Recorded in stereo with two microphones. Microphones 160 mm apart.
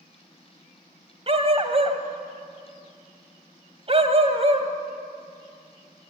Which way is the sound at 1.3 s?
40° right (ahead or behind).